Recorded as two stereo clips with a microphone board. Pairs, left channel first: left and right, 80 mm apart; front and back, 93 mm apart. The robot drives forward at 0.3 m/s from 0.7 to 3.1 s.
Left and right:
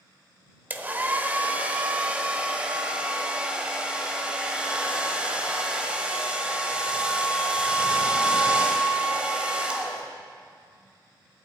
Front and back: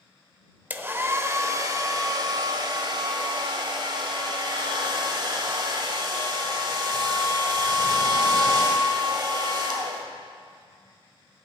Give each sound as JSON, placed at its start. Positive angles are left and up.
{"t": 0.7, "sound": "a hair dryer", "azimuth_deg": -125, "distance_m": 0.8}